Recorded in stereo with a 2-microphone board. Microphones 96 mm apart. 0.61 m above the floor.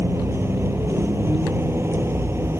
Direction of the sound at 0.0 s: 25° right (ahead or behind).